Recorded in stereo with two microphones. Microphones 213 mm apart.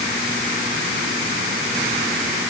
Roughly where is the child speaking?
No child speaking in this recording.